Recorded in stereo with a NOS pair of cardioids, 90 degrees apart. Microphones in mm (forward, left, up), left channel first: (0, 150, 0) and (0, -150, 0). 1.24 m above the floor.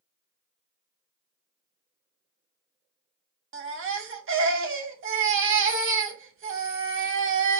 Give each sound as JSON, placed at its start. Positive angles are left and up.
{"t": 3.5, "sound": "a baby crying", "azimuth_deg": -45, "distance_m": 0.9}